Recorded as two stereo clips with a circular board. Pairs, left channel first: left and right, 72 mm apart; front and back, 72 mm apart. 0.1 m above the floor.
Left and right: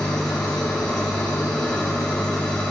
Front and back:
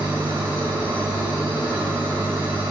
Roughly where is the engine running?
Behind.